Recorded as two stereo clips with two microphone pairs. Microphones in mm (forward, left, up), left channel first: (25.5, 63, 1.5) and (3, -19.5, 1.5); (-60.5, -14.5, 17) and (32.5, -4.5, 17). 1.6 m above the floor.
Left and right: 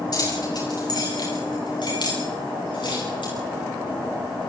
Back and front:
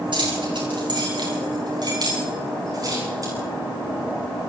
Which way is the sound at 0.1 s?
35° left.